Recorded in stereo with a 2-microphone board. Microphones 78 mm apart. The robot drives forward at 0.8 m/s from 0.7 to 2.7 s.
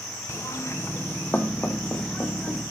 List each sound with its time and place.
0.3 s knocking: 35° left (ahead or behind), 0.6 m; by 2.6 s 10° left (ahead or behind), 2 m